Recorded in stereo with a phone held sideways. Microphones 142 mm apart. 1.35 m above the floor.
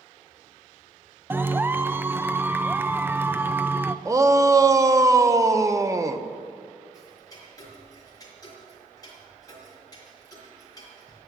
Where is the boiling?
No boiling in this recording.